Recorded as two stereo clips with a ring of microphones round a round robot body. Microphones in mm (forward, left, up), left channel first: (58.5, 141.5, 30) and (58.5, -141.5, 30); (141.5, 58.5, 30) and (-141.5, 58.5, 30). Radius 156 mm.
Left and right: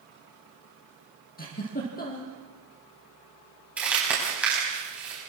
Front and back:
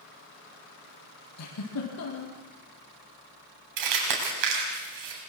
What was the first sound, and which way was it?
A giggle, 30° left.